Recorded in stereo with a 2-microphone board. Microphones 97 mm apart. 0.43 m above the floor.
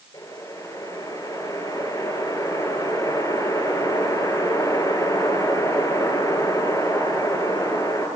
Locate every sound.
0.1 s a whoosh: 40° left (ahead or behind), 8.5 m